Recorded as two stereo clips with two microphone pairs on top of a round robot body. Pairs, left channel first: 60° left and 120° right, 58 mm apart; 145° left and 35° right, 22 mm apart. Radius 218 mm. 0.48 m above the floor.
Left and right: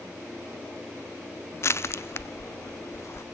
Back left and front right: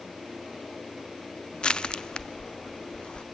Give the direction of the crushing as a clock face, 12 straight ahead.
9 o'clock.